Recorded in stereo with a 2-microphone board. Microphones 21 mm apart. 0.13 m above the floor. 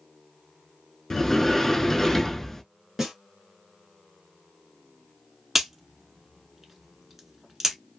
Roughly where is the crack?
Centre.